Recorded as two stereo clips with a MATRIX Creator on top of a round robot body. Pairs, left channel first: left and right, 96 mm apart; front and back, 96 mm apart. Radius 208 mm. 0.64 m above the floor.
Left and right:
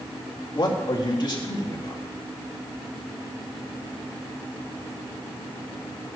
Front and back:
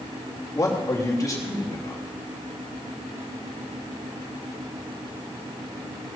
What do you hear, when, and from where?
0.6 s a man speaking: 50° left, 3 m